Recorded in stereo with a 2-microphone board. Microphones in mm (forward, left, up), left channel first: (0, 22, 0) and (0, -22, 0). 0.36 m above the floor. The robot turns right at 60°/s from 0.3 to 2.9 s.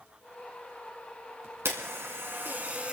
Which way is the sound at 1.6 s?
70° right (ahead or behind).